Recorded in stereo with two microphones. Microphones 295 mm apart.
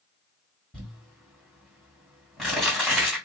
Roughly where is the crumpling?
Centre.